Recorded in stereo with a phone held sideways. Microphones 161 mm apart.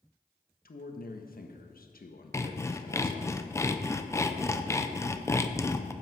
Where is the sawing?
15° left (ahead or behind), 0.5 m.